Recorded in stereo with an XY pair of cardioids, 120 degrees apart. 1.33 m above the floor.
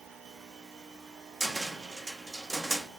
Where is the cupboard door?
25° right, 0.7 m.